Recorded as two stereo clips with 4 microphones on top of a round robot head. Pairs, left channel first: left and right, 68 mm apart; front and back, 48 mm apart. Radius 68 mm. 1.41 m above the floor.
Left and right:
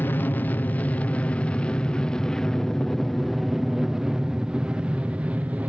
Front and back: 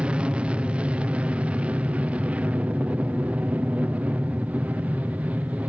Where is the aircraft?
130° left; by 5.7 s 145° right.